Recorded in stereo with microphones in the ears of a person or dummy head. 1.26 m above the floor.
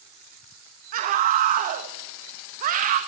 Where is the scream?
40° right (ahead or behind), 1.2 m.